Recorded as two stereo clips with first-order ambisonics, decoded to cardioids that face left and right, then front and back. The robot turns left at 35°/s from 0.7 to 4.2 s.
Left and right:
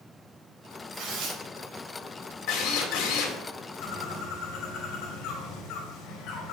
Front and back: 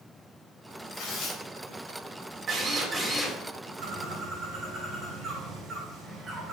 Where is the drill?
120° left, 2.5 m; by 3.4 s 90° left, 2.5 m.